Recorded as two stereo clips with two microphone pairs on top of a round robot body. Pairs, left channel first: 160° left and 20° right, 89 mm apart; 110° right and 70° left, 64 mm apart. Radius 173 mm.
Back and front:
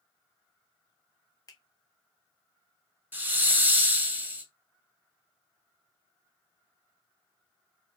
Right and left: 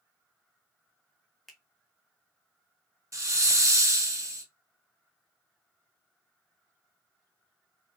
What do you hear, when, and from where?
1.5 s a finger snap: 160° left, 1.0 m
3.1 s a hiss: 45° left, 0.9 m